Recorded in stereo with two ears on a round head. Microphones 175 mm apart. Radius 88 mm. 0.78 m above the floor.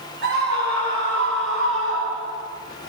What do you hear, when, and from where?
0.2 s a scream: 55° right (ahead or behind), 4.5 m; by 2.5 s 75° right (ahead or behind), 5 m